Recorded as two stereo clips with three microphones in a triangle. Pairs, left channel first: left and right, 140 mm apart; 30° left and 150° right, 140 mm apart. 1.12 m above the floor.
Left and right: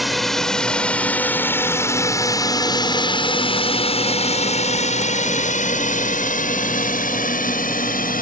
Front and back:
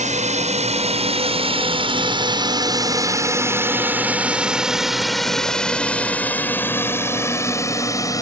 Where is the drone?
Straight behind; by 8.2 s 95° left.